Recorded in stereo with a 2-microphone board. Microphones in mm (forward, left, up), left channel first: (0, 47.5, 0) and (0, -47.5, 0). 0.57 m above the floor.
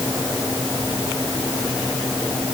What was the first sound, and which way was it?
Only background noise.